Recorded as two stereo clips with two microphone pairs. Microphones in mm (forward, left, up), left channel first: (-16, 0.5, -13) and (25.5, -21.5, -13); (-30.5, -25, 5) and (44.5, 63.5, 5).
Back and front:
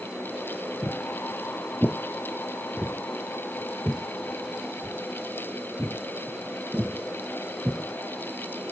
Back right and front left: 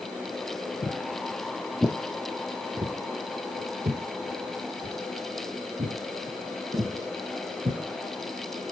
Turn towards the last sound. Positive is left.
turn(degrees=35)